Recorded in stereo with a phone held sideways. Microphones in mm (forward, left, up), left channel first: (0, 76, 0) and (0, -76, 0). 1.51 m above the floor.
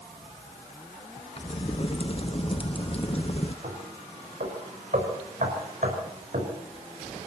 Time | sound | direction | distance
1.4 | a crack | 45° left (ahead or behind) | 0.9 m
3.6 | knocking | 65° right (ahead or behind) | 5 m